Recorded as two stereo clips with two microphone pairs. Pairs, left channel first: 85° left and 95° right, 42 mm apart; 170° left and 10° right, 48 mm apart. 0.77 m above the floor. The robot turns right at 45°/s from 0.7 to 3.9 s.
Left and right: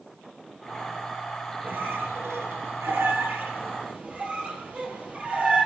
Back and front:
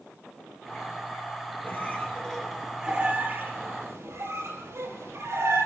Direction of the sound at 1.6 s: 140° right.